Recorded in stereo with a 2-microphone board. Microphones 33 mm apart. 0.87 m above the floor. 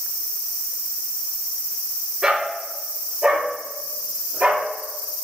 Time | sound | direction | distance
2.2 | a dog barking | 25° right (ahead or behind) | 4 m